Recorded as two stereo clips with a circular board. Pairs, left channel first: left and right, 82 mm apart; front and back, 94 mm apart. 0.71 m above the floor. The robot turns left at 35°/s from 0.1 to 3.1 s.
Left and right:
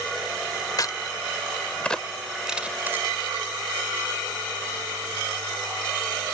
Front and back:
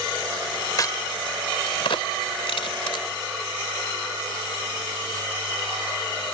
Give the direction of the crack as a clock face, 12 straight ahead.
10 o'clock.